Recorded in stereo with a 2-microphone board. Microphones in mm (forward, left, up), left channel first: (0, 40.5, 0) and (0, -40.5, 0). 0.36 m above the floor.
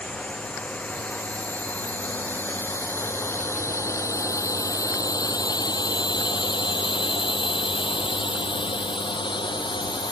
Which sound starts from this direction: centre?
A drone, at 0.0 s.